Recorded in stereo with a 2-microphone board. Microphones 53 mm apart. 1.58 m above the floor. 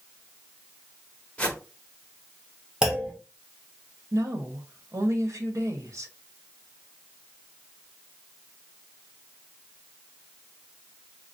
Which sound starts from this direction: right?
A woman speaking, at 4.1 s.